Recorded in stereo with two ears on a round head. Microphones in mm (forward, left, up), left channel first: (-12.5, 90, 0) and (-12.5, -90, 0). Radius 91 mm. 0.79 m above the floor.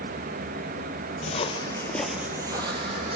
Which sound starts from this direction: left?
Footsteps, at 1.2 s.